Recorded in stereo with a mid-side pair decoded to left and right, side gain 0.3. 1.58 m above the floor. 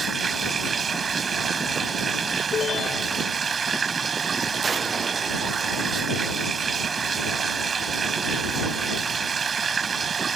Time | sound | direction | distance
0.0 | running water | 55° right | ?
2.5 | a ringtone | 70° left | ?